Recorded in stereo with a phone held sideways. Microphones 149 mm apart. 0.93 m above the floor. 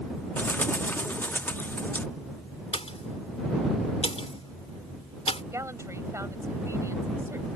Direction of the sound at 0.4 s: 15° left (ahead or behind).